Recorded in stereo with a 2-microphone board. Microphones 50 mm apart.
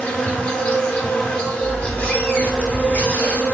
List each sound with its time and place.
0.0 s an insect: 20° left (ahead or behind), 0.8 m
1.6 s a squeak: 35° left (ahead or behind), 0.9 m